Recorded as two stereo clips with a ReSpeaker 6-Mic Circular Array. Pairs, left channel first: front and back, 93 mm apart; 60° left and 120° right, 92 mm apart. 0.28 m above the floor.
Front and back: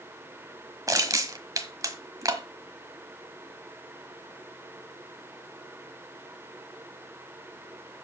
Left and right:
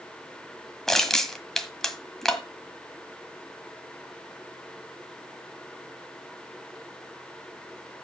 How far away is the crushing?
About 1.3 m.